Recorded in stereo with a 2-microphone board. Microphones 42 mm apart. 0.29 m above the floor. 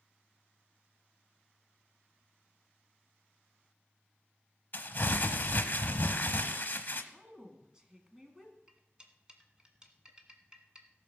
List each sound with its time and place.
4.7 s crumpling: 45° left (ahead or behind), 0.8 m
7.1 s a woman speaking: 15° right (ahead or behind), 2 m
8.7 s cutlery clinking: 20° right (ahead or behind), 1.3 m